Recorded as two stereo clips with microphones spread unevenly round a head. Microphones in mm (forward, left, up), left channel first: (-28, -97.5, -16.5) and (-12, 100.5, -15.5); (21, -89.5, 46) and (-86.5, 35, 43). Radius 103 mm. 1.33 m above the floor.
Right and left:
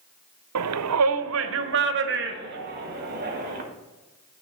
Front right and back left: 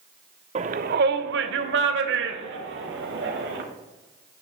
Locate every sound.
0.6 s a shout: 70° left, 0.5 m; by 3.6 s 130° left, 2.0 m